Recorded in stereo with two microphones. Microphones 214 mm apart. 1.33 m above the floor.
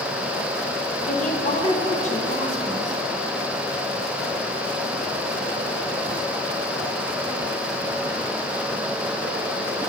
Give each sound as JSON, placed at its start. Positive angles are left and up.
{"t": 1.1, "sound": "a woman speaking", "side_deg": 35, "distance_m": 1.1}